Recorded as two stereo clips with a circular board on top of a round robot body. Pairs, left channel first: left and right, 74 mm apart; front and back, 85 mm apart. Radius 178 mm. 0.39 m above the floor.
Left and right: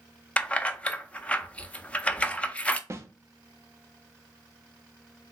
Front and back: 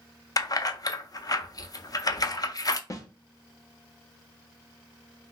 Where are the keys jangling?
20° left, 0.6 m.